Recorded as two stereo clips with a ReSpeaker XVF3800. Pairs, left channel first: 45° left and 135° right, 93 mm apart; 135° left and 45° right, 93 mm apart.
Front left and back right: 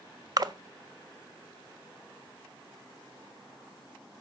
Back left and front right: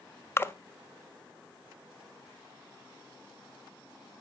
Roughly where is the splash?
Behind.